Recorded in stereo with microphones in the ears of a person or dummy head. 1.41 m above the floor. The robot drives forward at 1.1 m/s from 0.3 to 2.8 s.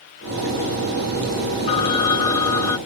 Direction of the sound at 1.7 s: 30° left (ahead or behind).